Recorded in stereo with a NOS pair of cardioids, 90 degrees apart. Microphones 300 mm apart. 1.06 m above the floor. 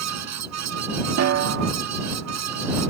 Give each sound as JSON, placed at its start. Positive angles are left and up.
{"t": 0.0, "sound": "a fan", "azimuth_deg": -65}
{"t": 1.2, "sound": "a snare drum", "azimuth_deg": -60}